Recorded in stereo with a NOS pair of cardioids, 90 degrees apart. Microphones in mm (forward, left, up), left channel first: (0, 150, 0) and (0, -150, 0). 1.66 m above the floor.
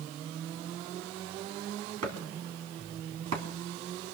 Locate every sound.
2.0 s chopping: 60° right, 3 m